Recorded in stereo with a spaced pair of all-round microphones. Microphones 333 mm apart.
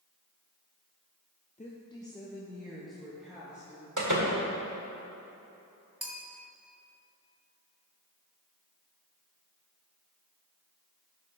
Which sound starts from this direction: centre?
A bell, at 6.0 s.